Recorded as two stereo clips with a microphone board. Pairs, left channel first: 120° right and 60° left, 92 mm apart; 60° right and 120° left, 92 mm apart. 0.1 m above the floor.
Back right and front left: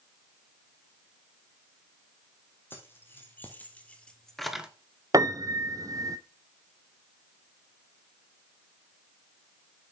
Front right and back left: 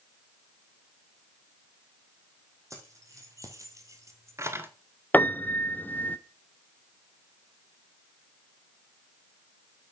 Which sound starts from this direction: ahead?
A piano, at 5.1 s.